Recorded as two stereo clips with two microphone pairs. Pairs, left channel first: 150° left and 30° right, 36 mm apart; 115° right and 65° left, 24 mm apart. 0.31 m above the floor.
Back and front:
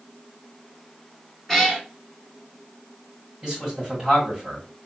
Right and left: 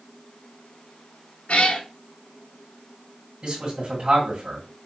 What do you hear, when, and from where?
1.5 s a cat meowing: 130° right, 1.0 m
3.4 s a man speaking: 45° left, 2 m